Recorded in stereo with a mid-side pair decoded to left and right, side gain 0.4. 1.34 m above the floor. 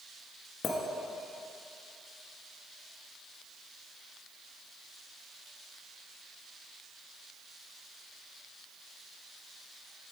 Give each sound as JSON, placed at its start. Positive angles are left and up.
{"t": 0.6, "sound": "a clink", "azimuth_deg": 60, "distance_m": 1.5}